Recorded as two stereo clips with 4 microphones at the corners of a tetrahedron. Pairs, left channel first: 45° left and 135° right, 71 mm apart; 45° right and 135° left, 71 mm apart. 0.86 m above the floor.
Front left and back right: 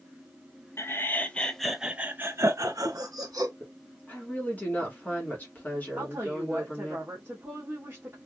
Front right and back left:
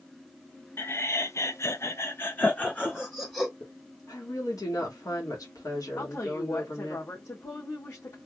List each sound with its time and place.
0.8 s laughter: straight ahead, 0.7 m; by 3.5 s 120° right, 1.0 m
3.6 s a woman speaking: 20° right, 1.4 m
6.0 s a woman speaking: 75° right, 1.2 m